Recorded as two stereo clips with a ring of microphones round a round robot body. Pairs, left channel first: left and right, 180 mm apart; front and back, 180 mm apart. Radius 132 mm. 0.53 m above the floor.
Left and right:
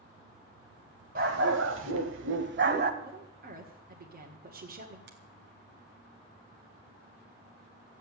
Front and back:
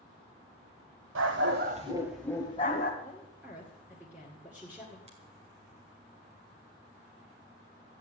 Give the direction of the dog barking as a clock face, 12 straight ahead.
5 o'clock.